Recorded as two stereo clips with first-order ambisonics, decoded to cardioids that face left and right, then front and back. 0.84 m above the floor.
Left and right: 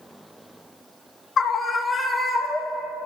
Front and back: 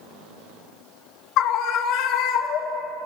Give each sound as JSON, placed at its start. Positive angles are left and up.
{"t": 1.4, "sound": "a scream", "azimuth_deg": 30, "distance_m": 1.4}